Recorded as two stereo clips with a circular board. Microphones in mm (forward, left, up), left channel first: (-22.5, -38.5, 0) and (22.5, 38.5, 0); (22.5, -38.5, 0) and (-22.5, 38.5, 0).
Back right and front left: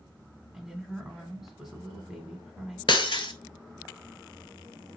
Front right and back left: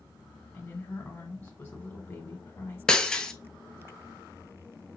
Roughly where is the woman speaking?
Ahead.